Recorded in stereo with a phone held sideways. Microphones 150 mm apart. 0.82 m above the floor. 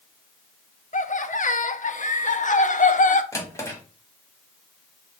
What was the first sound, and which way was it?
Laughter, 60° left (ahead or behind).